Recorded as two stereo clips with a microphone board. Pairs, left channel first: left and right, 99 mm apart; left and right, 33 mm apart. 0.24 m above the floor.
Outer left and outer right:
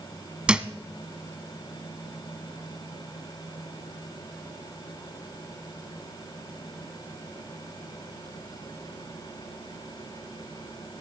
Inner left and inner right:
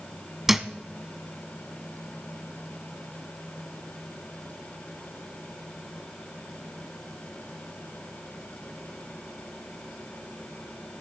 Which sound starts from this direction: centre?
A thud, at 0.5 s.